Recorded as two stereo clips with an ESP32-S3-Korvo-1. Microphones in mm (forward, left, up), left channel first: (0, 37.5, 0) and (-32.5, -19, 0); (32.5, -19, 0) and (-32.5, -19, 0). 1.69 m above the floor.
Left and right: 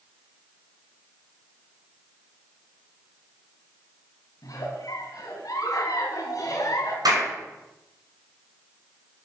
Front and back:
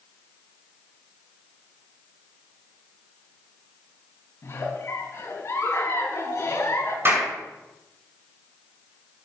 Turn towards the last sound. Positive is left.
turn(degrees=-125)